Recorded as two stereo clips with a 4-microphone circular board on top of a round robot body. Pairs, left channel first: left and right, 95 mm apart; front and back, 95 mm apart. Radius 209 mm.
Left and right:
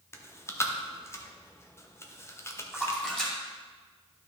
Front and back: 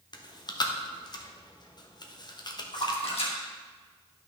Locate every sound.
0.1 s chewing: 30° left, 1.3 m
2.7 s a splash: 5° left, 2.5 m